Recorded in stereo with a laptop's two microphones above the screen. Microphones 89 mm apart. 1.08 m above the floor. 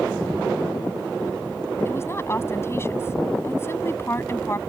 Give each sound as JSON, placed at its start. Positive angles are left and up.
{"t": 1.9, "sound": "a woman speaking", "side_deg": 30}